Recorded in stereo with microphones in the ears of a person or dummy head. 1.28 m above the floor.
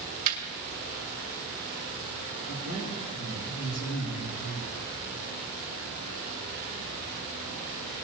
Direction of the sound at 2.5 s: 60° left (ahead or behind).